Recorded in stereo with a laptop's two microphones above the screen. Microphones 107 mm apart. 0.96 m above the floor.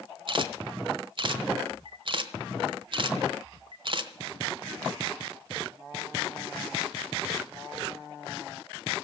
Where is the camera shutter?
50° right (ahead or behind), 1.1 m.